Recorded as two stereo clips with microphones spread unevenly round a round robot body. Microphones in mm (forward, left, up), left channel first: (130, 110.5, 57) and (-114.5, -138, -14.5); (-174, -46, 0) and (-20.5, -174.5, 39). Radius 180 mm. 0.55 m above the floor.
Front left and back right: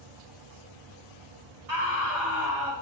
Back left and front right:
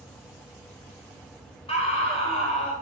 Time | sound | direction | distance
1.7 | a scream | 160° right | 2.5 m